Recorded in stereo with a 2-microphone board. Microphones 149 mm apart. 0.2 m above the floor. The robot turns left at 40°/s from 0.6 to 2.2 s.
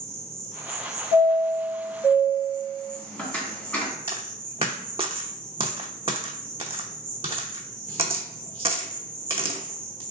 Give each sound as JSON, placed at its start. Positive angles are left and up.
{"t": 0.0, "sound": "an insect", "azimuth_deg": -40, "distance_m": 1.0}
{"t": 1.1, "sound": "a chime", "side_deg": 35, "distance_m": 1.0}
{"t": 4.1, "sound": "a dropped coin", "side_deg": -40, "distance_m": 0.6}